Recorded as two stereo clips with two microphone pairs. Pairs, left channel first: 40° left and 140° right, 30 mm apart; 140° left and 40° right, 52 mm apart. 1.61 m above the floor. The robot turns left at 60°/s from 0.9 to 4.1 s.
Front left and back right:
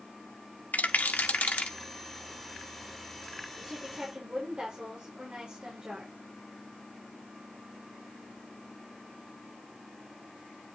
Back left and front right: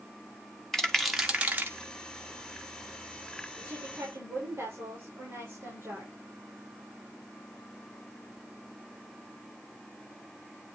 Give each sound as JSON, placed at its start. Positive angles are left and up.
{"t": 0.7, "sound": "a rattle", "azimuth_deg": 55, "distance_m": 1.7}
{"t": 3.6, "sound": "a woman speaking", "azimuth_deg": -50, "distance_m": 5.5}